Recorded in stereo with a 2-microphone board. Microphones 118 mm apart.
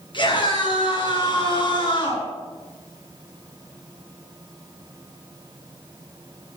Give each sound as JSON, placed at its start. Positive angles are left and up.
{"t": 0.1, "sound": "a scream", "side_deg": 45, "distance_m": 7.5}